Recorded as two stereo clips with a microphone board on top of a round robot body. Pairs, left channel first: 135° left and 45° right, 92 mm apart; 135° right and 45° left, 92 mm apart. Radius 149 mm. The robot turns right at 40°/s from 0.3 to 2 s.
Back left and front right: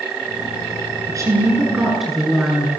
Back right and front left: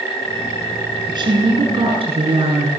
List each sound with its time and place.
1.1 s a woman speaking: 5° left, 8 m; by 2.7 s 40° left, 8 m